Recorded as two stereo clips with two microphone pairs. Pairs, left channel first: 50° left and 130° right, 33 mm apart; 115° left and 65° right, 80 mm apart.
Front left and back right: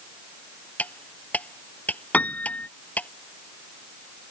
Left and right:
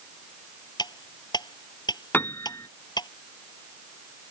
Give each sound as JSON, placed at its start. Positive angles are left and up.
{"t": 0.8, "sound": "cutlery clinking", "azimuth_deg": 85}
{"t": 2.1, "sound": "a piano", "azimuth_deg": 55}